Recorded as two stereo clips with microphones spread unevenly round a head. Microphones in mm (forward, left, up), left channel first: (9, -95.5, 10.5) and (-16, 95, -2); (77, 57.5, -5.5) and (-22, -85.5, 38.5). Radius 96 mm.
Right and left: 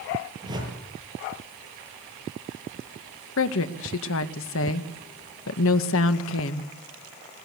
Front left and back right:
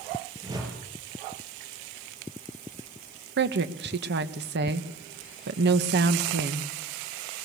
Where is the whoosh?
165° left, 7 m.